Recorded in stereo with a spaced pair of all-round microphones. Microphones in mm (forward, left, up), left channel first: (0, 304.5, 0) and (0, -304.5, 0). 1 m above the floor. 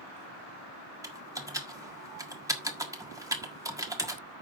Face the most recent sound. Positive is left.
turn(degrees=-5)  # may be behind; listen again after turning